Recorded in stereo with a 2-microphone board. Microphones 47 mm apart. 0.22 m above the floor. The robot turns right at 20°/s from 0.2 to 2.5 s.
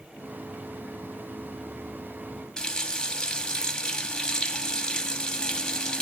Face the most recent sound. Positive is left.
turn(degrees=15)  # may be behind; listen again after turning